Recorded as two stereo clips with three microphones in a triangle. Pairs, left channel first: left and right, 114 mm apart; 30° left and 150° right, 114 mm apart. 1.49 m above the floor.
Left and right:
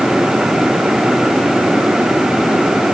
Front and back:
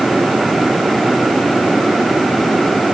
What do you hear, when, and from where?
Only background noise.